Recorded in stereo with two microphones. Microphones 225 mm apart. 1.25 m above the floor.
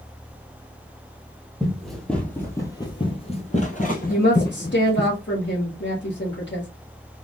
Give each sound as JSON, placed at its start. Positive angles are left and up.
{"t": 1.6, "sound": "running footsteps", "side_deg": -5, "distance_m": 1.8}
{"t": 4.1, "sound": "a woman speaking", "side_deg": 55, "distance_m": 1.8}